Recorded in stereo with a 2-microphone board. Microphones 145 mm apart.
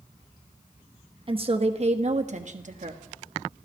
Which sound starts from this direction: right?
A woman speaking, at 1.3 s.